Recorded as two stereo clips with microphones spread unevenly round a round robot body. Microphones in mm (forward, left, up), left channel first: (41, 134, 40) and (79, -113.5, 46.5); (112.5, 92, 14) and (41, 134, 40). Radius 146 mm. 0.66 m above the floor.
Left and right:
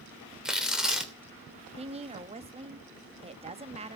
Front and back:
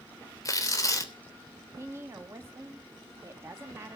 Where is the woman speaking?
135° right, 1.0 m.